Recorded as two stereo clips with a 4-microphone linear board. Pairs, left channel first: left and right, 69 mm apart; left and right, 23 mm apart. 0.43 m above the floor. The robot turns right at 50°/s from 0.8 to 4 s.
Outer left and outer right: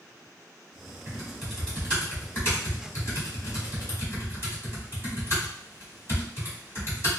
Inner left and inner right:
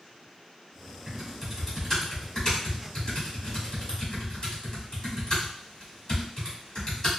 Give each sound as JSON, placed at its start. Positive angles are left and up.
{"t": 1.1, "sound": "typing on a keyboard", "side_deg": -15, "distance_m": 1.4}